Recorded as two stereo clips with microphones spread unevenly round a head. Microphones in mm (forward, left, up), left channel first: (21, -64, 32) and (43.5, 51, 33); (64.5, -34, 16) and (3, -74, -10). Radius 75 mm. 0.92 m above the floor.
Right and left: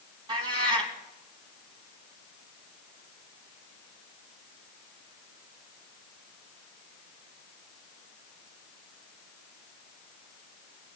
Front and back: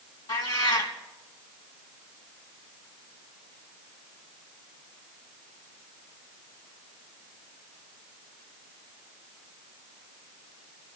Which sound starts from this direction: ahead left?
A cat meowing, at 0.3 s.